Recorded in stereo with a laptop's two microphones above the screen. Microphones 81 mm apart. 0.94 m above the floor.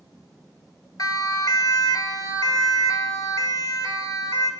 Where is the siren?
50° left (ahead or behind), 2 m; by 4.5 s 55° left (ahead or behind), 4.5 m.